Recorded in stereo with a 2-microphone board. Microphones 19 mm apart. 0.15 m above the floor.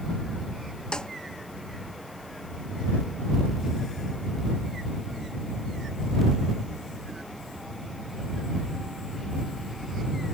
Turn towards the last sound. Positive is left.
turn(degrees=45)  # may be behind; listen again after turning